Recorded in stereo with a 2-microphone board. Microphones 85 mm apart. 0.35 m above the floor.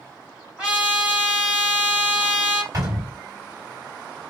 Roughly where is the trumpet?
Centre.